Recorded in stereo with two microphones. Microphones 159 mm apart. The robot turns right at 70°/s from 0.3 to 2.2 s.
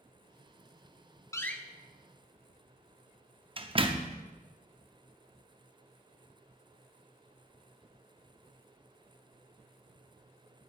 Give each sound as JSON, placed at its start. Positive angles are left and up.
{"t": 1.3, "sound": "a door slam", "side_deg": 20, "distance_m": 0.7}